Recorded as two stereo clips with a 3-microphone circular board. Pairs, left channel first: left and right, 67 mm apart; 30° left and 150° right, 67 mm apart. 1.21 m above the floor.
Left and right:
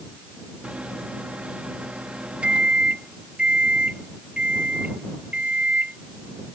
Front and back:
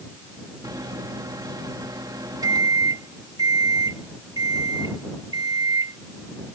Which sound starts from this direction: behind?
A microwave, at 0.6 s.